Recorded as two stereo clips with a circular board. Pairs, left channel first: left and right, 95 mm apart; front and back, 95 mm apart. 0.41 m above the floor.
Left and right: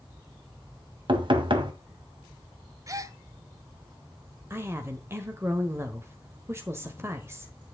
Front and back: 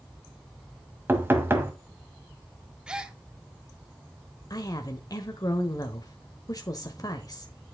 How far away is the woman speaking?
About 1.2 m.